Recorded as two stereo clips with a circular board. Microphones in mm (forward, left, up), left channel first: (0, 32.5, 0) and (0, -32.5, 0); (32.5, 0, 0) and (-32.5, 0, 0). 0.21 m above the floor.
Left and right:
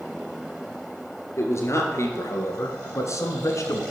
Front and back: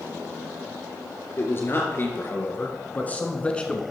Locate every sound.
1.4 s a man speaking: 50° left, 3 m; by 3.8 s 75° left, 1.7 m